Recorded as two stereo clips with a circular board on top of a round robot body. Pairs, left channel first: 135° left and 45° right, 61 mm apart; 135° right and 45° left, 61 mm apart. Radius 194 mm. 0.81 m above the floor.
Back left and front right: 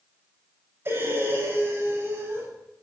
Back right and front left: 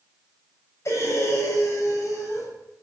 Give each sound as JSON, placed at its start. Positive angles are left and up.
{"t": 0.8, "sound": "breathing", "azimuth_deg": -95, "distance_m": 7.0}